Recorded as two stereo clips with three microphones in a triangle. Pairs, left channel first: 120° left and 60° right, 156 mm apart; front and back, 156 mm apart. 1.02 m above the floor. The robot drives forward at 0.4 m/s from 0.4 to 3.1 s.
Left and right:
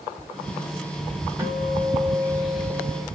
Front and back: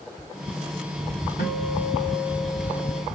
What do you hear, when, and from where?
1.4 s a guitar: 15° left, 1.9 m; by 3.0 s 20° left, 1.2 m